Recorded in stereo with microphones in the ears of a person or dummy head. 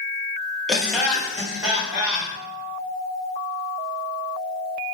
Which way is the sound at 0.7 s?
Centre (ahead or behind).